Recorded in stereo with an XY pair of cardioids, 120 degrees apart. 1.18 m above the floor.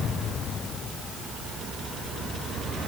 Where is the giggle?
I don't hear a giggle.